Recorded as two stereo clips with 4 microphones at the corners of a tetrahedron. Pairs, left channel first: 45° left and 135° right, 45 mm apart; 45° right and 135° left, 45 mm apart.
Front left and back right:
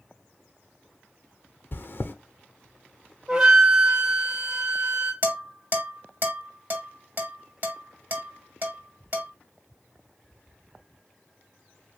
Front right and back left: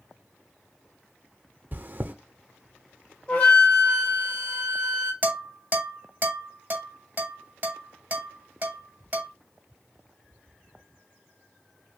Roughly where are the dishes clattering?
Behind.